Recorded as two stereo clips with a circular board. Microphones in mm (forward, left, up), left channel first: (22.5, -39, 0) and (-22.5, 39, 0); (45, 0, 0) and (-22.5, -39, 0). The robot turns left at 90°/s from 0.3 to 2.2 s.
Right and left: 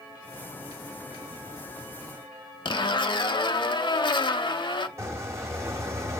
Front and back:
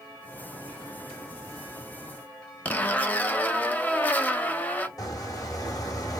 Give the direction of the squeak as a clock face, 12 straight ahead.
10 o'clock.